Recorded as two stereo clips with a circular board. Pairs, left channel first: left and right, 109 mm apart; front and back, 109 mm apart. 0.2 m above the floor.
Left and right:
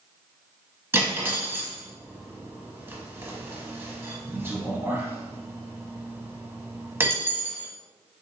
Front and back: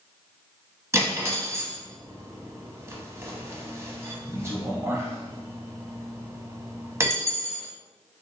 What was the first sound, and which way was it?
Cutlery clinking, 140° right.